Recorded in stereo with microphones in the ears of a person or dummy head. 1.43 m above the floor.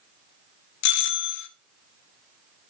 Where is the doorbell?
60° left (ahead or behind), 2 m.